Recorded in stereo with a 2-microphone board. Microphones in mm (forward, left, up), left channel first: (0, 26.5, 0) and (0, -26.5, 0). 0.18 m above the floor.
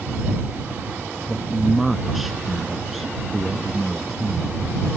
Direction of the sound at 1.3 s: 5° right (ahead or behind).